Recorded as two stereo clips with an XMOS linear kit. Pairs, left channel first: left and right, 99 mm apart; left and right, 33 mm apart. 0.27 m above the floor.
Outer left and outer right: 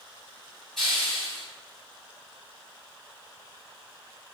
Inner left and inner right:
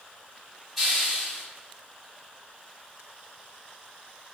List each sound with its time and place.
0.8 s a hiss: 5° left (ahead or behind), 1.9 m